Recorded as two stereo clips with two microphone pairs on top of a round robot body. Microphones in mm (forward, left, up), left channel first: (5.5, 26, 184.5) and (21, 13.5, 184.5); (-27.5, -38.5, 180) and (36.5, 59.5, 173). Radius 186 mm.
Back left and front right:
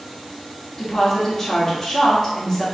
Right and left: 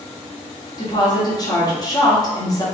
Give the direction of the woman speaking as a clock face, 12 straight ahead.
6 o'clock.